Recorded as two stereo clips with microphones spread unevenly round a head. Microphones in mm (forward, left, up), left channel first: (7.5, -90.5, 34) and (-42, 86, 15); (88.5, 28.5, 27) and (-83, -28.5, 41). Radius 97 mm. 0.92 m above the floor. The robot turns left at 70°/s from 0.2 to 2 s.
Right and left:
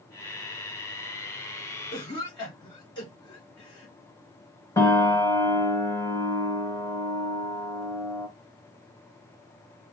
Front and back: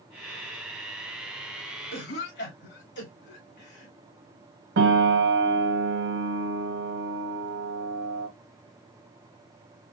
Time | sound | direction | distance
1.9 | a cough | straight ahead | 2 m
4.8 | a piano | 150° right | 1.3 m